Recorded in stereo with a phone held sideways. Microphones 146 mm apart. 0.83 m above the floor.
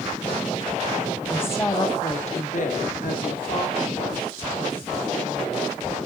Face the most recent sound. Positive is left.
turn(degrees=70)  # may be behind; listen again after turning